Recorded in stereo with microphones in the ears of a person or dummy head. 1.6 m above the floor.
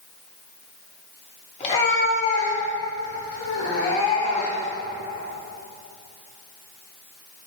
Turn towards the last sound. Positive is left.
turn(degrees=75)  # may be behind; listen again after turning